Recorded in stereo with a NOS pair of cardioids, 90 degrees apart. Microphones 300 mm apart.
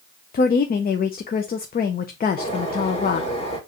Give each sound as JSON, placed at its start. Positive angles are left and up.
{"t": 0.3, "sound": "a woman speaking", "azimuth_deg": 30, "distance_m": 0.6}
{"t": 2.4, "sound": "a bird", "azimuth_deg": 20, "distance_m": 2.0}